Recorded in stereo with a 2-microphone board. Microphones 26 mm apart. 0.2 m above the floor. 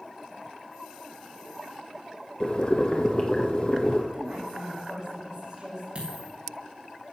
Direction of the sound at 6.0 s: 45° right (ahead or behind).